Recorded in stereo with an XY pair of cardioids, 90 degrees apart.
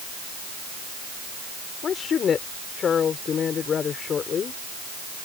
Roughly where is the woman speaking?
Ahead left.